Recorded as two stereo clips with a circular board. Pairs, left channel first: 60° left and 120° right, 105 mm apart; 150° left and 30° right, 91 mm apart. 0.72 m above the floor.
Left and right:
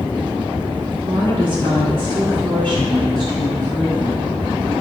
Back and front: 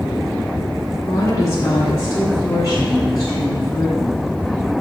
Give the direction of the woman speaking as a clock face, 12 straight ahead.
5 o'clock.